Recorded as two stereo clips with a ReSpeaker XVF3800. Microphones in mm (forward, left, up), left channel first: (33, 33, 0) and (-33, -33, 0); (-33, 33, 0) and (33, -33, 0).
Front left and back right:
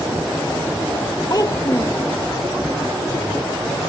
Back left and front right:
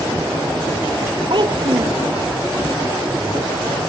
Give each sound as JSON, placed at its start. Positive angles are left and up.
{"t": 1.3, "sound": "a child speaking", "azimuth_deg": -5}